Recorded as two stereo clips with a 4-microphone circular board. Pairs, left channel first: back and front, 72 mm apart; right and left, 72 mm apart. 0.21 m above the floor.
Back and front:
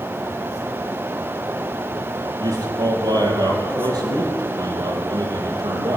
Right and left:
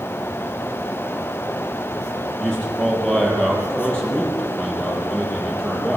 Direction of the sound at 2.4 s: 10° right.